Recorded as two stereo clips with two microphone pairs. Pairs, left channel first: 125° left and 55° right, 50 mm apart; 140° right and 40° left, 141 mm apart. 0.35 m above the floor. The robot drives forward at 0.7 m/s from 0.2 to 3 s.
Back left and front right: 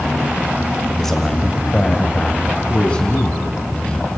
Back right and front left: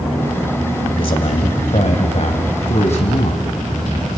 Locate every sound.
1.0 s a man speaking: 155° right, 1.4 m; by 4.2 s 170° right, 2.5 m